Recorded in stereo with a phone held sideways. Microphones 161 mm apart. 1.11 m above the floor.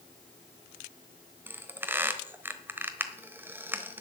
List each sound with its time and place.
1.5 s a squeak: 15° right (ahead or behind), 1.0 m